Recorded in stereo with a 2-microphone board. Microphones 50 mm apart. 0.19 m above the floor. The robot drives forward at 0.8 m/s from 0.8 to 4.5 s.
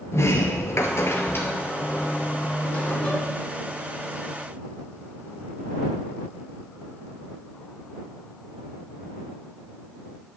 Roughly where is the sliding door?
Left.